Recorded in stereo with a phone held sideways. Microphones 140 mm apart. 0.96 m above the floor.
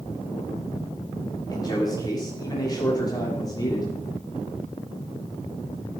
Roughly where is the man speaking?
Left.